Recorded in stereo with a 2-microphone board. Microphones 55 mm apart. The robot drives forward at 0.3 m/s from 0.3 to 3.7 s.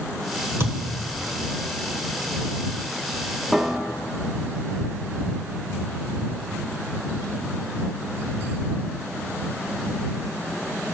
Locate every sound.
0.6 s a thud: 55° right (ahead or behind), 1.1 m; by 1.0 s 50° right (ahead or behind), 1.1 m
3.5 s a piano: 5° left (ahead or behind), 0.8 m